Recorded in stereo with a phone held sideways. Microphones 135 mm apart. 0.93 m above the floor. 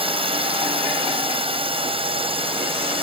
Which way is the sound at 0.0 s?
40° right (ahead or behind).